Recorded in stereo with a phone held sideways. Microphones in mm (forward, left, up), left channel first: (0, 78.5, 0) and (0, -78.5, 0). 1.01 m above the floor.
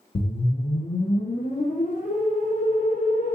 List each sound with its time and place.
0.1 s a whoosh: 55° left (ahead or behind), 0.6 m